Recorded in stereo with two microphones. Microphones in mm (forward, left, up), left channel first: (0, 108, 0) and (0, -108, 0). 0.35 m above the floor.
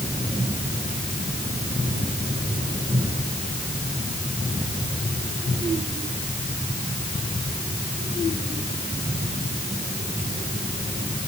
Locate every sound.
Only background noise.